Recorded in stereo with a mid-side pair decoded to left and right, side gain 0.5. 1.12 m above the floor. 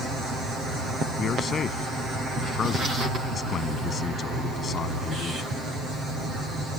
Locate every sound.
1.2 s a man speaking: 45° left